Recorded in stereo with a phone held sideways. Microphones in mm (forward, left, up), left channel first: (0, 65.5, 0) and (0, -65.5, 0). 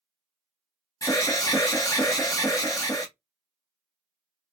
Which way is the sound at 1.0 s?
25° left (ahead or behind).